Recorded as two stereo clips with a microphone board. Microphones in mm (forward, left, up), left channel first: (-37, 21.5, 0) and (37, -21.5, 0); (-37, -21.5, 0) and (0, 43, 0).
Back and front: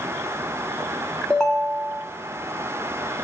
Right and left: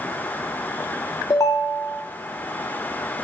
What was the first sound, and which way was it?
A ringtone, 130° right.